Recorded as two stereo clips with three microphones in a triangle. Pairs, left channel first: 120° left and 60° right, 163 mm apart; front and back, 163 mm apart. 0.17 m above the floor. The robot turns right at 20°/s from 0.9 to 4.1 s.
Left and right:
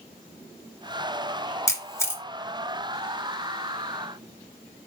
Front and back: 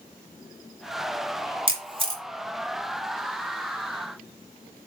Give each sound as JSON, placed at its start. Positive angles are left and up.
{"t": 1.7, "sound": "a camera shutter", "azimuth_deg": 175, "distance_m": 1.7}